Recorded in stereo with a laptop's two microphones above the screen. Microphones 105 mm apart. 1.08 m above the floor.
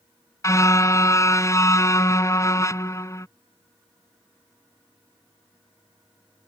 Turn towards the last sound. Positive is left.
turn(degrees=30)  # may be behind; listen again after turning